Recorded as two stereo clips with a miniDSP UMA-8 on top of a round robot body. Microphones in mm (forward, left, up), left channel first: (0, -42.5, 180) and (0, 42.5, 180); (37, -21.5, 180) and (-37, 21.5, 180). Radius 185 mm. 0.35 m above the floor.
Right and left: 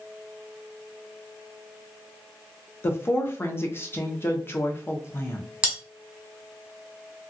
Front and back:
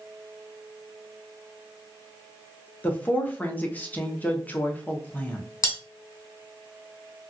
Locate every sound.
2.8 s a woman speaking: 75° right, 1.0 m
5.6 s cutlery clinking: 10° left, 1.6 m